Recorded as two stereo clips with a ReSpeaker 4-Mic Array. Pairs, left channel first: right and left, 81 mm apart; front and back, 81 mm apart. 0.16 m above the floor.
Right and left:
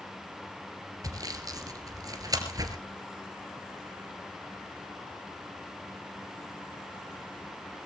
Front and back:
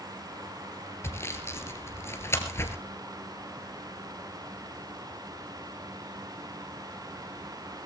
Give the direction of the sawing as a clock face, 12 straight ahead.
10 o'clock.